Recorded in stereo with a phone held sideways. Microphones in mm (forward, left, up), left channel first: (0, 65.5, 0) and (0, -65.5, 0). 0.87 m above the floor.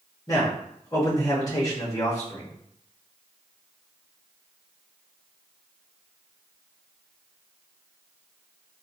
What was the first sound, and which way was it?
A man speaking, 25° left (ahead or behind).